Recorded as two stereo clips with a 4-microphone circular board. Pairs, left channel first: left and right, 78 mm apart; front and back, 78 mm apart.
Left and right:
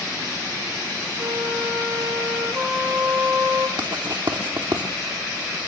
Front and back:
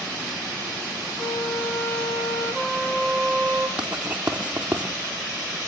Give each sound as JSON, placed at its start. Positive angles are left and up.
{"t": 1.2, "sound": "a flute", "azimuth_deg": -50, "distance_m": 3.5}
{"t": 3.8, "sound": "writing", "azimuth_deg": -105, "distance_m": 3.5}